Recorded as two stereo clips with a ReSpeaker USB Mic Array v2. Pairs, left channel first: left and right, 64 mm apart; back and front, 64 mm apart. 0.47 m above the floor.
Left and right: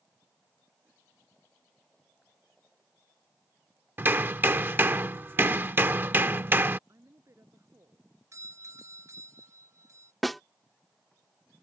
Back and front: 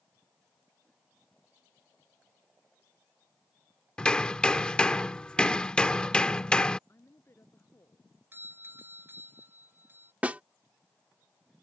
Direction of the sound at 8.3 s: 55° right.